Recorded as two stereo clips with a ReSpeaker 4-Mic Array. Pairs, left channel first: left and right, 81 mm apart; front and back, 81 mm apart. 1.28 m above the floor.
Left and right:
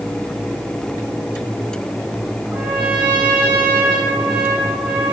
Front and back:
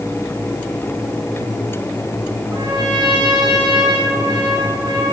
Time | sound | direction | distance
2.5 | a trumpet | 160° right | 4 m